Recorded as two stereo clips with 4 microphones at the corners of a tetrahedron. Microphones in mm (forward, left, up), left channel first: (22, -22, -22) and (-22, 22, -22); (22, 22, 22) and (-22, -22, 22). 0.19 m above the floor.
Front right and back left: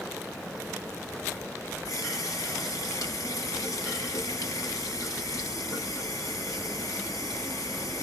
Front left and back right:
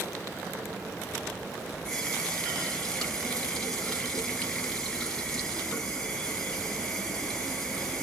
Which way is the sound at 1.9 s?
35° right.